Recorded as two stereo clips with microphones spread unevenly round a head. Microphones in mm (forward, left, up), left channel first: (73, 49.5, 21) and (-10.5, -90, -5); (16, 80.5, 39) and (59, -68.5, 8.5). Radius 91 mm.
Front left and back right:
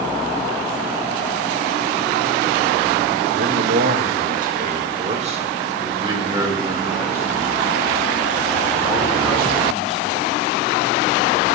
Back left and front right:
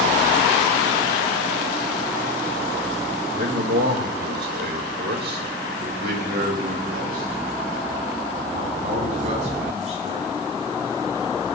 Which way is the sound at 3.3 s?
115° right.